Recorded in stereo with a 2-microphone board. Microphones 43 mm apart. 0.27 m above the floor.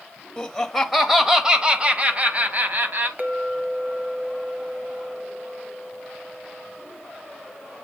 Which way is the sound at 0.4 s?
15° left (ahead or behind).